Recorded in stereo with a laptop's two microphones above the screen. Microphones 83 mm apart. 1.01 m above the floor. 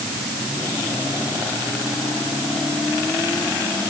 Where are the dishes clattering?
No dishes clattering in this recording.